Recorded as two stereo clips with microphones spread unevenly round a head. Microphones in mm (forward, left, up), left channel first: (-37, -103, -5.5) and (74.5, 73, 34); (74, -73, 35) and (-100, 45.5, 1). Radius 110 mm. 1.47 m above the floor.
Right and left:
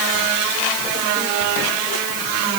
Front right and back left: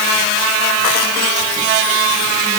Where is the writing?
No writing in this recording.